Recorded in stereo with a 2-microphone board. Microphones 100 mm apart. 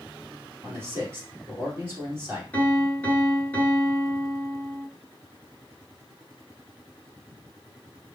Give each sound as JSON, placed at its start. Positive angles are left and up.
{"t": 0.6, "sound": "a man speaking", "side_deg": -25, "distance_m": 2.5}
{"t": 2.5, "sound": "a piano", "side_deg": 20, "distance_m": 1.4}